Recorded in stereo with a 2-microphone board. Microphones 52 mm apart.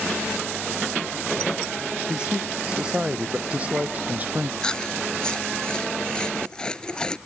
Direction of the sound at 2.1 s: 15° right (ahead or behind).